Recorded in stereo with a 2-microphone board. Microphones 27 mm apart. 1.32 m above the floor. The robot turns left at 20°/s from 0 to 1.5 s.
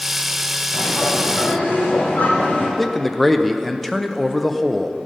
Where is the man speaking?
10° left (ahead or behind), 0.6 m.